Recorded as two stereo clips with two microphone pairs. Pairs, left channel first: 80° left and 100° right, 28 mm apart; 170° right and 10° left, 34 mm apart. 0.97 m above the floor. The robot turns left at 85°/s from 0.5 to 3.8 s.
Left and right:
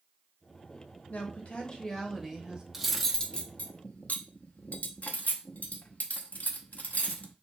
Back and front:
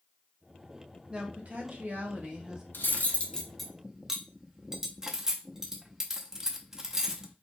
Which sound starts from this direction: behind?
Cutlery clinking, at 2.7 s.